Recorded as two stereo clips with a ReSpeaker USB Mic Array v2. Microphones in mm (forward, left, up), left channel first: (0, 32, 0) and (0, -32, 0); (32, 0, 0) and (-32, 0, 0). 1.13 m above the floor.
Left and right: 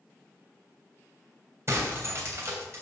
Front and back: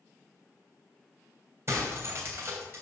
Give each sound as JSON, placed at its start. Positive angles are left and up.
{"t": 1.7, "sound": "breaking glass", "azimuth_deg": -135, "distance_m": 2.5}